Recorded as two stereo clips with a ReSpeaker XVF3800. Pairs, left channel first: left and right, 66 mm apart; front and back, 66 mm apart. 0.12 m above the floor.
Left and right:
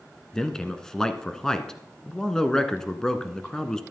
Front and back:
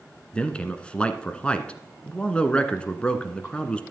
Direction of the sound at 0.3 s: 30° left.